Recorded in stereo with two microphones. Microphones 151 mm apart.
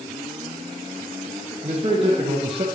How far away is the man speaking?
About 3.5 m.